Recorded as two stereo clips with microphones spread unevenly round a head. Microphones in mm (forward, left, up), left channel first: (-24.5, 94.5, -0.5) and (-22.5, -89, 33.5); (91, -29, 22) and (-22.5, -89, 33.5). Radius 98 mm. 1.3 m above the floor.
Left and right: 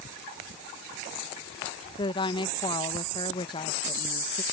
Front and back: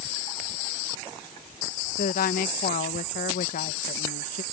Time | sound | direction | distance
2.0 | a woman speaking | 25° left | ?